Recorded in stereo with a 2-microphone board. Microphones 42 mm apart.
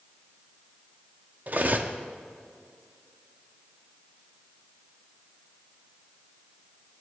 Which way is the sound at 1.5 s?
45° right (ahead or behind).